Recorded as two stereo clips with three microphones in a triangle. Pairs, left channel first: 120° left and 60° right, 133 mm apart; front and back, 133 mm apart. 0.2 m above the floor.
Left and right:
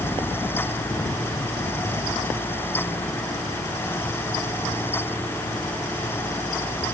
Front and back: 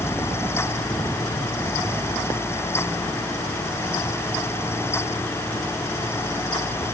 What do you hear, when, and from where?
Only background noise.